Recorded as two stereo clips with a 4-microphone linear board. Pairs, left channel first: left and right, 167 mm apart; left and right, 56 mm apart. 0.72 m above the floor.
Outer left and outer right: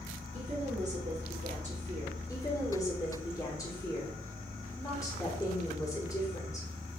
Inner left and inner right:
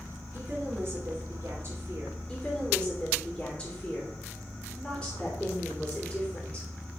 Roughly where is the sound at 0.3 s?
Right.